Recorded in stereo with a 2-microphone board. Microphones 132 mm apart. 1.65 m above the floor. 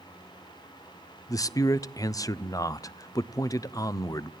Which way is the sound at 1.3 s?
25° left (ahead or behind).